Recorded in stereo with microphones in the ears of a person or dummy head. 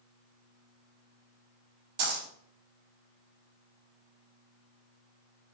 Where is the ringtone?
I don't hear a ringtone.